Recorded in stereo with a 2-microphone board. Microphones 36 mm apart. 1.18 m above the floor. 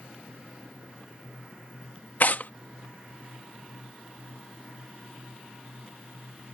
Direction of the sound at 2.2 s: 55° left (ahead or behind).